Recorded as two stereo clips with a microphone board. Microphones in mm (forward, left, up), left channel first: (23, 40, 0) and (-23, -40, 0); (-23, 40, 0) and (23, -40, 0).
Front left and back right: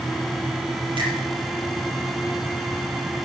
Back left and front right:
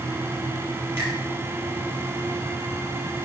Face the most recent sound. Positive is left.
turn(degrees=-125)